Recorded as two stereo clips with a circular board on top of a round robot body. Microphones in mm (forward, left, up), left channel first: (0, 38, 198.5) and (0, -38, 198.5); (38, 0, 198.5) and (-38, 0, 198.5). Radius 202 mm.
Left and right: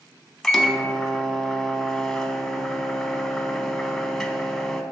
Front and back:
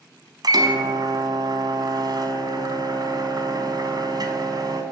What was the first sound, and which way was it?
A microwave, straight behind.